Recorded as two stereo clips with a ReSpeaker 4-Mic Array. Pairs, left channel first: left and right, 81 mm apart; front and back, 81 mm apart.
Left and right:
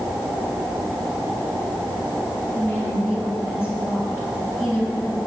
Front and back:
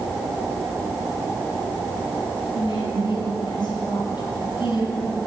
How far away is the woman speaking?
About 6 m.